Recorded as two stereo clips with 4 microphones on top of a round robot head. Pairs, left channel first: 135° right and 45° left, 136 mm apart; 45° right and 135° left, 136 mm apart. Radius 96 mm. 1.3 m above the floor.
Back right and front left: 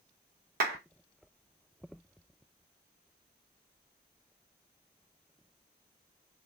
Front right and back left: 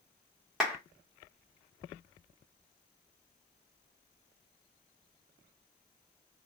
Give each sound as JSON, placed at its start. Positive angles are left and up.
{"t": 0.6, "sound": "a clap", "azimuth_deg": 45, "distance_m": 0.9}